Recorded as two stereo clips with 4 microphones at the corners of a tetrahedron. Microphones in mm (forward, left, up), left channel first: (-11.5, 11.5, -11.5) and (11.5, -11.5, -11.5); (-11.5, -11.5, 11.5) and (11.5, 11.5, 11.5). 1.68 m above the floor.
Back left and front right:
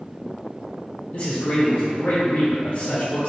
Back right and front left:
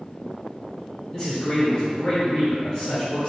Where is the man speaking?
175° left, 1.3 m.